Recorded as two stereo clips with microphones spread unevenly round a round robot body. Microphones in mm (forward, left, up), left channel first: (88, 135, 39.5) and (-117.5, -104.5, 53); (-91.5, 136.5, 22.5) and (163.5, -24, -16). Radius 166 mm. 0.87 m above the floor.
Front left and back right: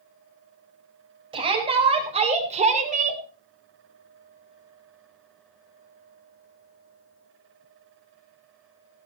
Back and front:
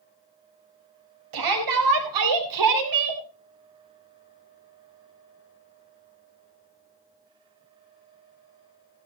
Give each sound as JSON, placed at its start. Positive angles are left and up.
{"t": 1.3, "sound": "a shout", "azimuth_deg": -55, "distance_m": 5.0}